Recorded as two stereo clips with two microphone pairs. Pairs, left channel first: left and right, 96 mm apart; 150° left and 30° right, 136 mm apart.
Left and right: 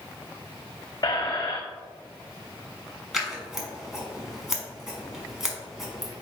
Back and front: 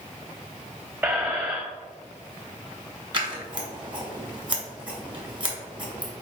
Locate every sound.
1.0 s a squeak: 40° left, 0.7 m
3.1 s scissors: 5° right, 1.2 m